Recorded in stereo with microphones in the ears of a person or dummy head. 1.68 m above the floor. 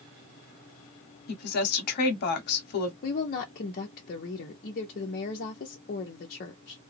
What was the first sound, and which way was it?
A woman speaking, 50° left (ahead or behind).